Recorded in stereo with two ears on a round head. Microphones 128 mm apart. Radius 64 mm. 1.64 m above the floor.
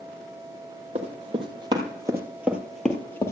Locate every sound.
0.9 s running footsteps: 45° right (ahead or behind), 2.5 m; by 3.3 s 20° left (ahead or behind), 1.7 m